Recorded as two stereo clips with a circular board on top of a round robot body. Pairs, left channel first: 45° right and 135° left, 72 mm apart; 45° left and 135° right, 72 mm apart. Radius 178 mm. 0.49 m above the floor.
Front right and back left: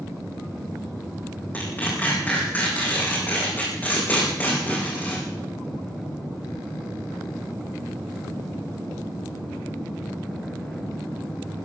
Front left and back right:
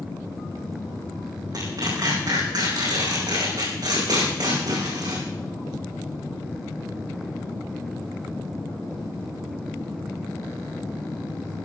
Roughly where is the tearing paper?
Right.